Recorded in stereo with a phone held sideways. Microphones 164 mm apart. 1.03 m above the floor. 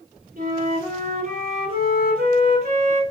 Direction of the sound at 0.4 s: 60° right (ahead or behind).